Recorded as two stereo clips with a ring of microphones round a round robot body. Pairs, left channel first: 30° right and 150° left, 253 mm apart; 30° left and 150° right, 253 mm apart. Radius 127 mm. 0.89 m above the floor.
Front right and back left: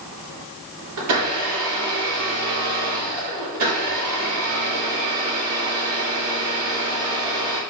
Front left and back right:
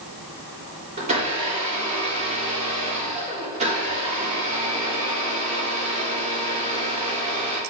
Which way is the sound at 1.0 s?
145° left.